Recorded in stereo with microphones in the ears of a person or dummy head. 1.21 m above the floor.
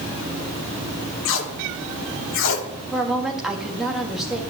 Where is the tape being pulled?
75° left (ahead or behind), 1.4 m.